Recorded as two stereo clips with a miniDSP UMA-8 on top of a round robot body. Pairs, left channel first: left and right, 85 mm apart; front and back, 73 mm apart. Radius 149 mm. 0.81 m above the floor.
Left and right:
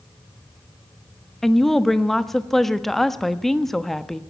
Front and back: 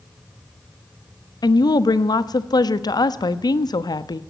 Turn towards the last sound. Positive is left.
turn(degrees=5)